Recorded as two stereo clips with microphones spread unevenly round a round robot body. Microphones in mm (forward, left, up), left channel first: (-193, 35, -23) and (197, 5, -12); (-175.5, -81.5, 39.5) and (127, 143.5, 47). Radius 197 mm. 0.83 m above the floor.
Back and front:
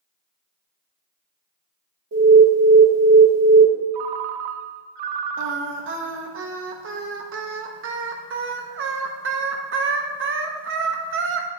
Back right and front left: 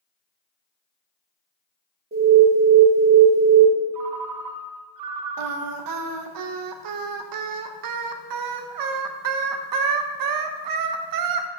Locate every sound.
2.1 s an alarm: 5° right, 1.4 m
3.9 s a ringtone: straight ahead, 0.5 m
5.4 s singing: 50° left, 0.6 m